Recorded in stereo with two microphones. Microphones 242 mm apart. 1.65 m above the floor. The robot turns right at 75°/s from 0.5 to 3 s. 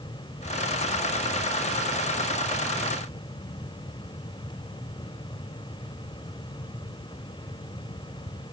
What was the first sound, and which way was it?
Only background noise.